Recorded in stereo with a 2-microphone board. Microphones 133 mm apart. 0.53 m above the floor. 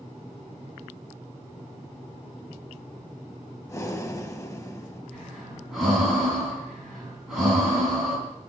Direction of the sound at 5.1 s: Centre (ahead or behind).